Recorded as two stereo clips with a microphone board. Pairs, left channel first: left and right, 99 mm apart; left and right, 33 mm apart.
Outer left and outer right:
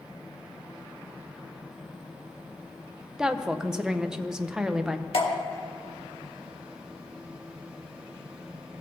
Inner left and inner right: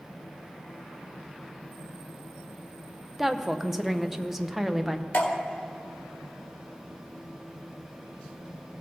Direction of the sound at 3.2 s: 5° right (ahead or behind).